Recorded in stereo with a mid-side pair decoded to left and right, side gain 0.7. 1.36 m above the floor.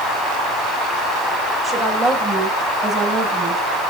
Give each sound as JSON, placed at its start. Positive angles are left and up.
{"t": 1.6, "sound": "a woman speaking", "azimuth_deg": -20, "distance_m": 6.0}